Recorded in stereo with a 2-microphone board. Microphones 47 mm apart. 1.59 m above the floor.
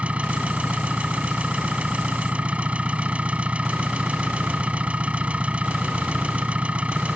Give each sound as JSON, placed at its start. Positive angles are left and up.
{"t": 0.0, "sound": "an engine running", "side_deg": -25}